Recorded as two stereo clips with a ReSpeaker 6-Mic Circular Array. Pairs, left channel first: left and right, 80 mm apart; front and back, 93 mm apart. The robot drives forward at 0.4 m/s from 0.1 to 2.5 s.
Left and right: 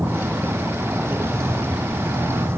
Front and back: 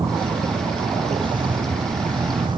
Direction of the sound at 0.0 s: 150° right.